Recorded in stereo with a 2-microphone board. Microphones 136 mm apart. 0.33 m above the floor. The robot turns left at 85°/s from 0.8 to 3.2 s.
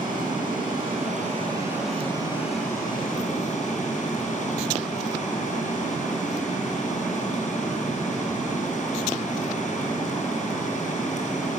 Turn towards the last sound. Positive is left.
turn(degrees=70)